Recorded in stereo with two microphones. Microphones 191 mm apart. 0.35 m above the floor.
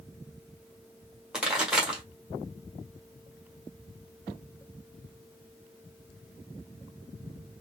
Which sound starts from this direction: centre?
A pop, at 1.3 s.